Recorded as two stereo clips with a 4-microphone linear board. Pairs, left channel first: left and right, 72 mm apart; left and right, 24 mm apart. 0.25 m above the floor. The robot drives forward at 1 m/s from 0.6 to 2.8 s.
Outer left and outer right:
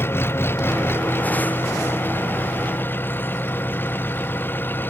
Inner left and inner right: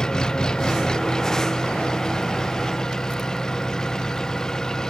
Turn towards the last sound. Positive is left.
turn(degrees=30)  # may be behind; listen again after turning